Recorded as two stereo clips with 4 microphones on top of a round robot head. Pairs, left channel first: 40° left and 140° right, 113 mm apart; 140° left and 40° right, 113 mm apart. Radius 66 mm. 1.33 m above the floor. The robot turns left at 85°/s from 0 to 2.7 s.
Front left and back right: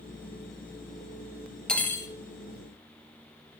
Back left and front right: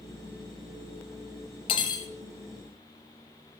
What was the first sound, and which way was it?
Cutlery clinking, 120° left.